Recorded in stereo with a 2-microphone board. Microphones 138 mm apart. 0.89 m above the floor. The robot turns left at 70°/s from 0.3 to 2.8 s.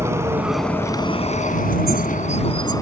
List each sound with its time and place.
0.0 s a vehicle: 160° right; by 2.8 s 25° left